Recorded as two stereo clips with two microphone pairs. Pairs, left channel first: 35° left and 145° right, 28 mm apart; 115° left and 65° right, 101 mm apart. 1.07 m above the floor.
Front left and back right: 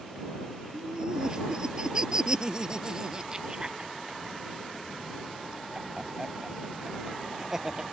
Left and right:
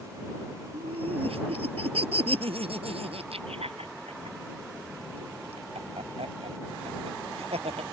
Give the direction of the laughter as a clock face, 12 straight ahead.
3 o'clock.